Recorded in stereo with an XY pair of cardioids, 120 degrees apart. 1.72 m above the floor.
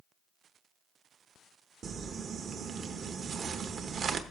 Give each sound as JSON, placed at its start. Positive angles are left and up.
{"t": 1.8, "sound": "crumpling", "azimuth_deg": -45, "distance_m": 1.0}